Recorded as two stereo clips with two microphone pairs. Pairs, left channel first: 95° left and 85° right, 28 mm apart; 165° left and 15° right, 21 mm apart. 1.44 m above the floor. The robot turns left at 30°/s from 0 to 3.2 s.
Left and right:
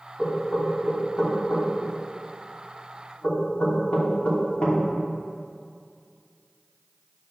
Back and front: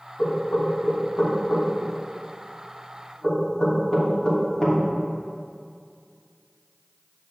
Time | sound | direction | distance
0.2 | knocking | 175° right | 3 m